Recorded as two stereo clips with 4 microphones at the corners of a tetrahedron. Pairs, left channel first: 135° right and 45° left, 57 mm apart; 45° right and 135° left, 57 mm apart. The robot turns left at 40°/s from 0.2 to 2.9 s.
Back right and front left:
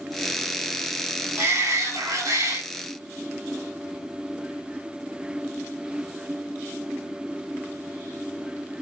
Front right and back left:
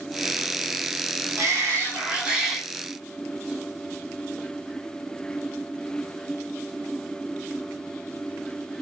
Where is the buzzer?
No buzzer in this recording.